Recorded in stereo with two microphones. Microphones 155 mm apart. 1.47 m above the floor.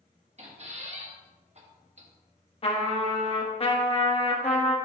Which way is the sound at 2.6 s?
35° left (ahead or behind).